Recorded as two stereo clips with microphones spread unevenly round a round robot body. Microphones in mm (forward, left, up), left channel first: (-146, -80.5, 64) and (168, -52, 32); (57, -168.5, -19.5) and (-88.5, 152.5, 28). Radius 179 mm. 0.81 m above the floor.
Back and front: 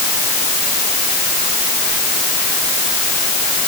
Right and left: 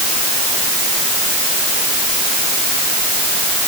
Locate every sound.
Only background noise.